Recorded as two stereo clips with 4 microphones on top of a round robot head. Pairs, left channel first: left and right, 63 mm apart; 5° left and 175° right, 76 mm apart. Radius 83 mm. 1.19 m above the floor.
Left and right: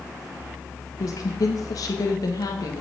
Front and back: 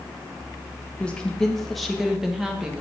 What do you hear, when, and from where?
1.0 s a woman speaking: 75° left, 1.6 m; by 2.8 s 105° left, 2 m